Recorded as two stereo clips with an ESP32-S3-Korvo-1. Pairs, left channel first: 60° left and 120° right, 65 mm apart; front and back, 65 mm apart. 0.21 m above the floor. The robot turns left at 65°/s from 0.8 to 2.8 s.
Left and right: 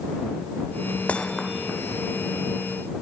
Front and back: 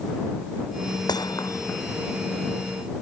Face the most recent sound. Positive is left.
turn(degrees=-120)